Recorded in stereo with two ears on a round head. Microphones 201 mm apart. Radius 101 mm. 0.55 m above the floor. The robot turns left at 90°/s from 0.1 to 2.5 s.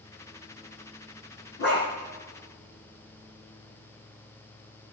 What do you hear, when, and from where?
1.6 s a dog barking: 45° left (ahead or behind), 6 m; by 1.9 s 70° left (ahead or behind), 6 m